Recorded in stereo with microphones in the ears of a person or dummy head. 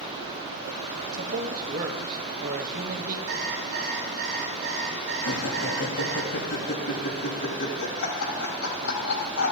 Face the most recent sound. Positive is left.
turn(degrees=90)